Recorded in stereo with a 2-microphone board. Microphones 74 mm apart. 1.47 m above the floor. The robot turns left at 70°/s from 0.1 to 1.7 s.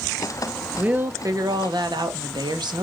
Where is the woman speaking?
15° right, 1.8 m; by 2.9 s 80° right, 1.8 m.